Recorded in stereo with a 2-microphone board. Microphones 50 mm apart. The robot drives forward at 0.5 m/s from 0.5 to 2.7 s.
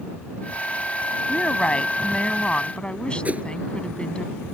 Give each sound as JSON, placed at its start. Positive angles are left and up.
{"t": 1.3, "sound": "a woman speaking", "side_deg": 25}
{"t": 3.2, "sound": "a whoosh", "side_deg": -30}